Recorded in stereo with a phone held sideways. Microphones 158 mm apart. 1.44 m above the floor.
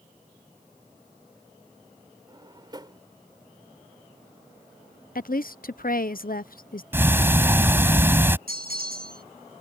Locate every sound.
2.3 s a drawer: 30° right (ahead or behind)
5.2 s a woman speaking: 70° left (ahead or behind)
6.9 s ticking: 15° right (ahead or behind)
8.5 s a bell: 80° right